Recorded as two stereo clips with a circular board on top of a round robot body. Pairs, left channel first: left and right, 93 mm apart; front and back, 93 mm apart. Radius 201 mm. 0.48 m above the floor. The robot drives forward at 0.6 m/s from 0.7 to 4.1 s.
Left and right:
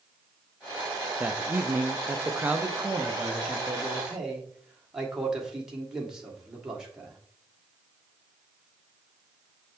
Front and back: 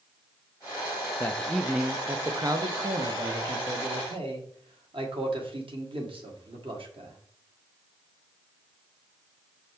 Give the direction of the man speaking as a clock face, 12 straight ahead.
1 o'clock.